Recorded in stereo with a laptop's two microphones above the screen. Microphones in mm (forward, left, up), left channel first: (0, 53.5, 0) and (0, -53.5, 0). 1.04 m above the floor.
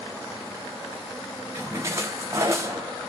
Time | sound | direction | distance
1.6 | a splash | 30° right (ahead or behind) | 0.8 m